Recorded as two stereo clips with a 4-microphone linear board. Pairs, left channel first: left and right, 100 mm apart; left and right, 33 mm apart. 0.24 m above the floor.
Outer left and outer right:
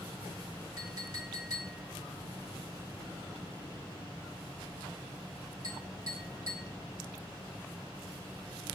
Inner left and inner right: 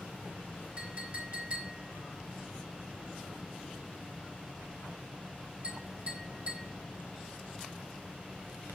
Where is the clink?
40° right (ahead or behind), 1.1 m.